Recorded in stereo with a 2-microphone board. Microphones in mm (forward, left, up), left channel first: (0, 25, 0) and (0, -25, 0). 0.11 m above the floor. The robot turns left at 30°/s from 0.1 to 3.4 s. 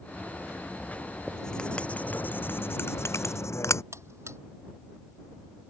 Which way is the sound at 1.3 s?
5° left (ahead or behind).